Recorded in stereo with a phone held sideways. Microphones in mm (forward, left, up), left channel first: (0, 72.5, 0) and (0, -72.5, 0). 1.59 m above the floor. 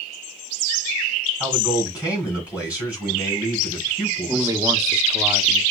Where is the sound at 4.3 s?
20° right (ahead or behind), 1.0 m.